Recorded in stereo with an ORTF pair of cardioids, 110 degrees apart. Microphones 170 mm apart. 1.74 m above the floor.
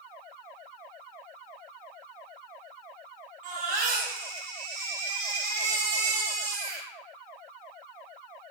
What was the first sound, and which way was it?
A baby crying, 70° right.